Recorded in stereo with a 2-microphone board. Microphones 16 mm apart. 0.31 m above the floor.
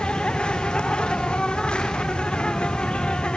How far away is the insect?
About 2.5 m.